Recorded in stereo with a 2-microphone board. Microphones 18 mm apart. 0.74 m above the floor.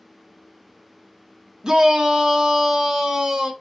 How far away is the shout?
About 1.1 m.